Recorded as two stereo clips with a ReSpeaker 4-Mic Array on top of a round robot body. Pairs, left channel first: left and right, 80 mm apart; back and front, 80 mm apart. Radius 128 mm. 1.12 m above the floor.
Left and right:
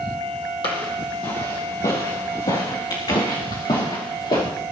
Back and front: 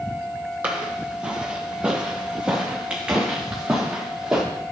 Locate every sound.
0.6 s footsteps: 70° left, 2 m; by 4.4 s 80° left, 6 m